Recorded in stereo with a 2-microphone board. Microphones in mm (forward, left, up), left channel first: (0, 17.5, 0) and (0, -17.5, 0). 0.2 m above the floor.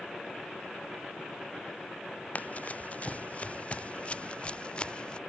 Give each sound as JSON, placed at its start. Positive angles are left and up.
{"t": 2.4, "sound": "running footsteps", "side_deg": 40}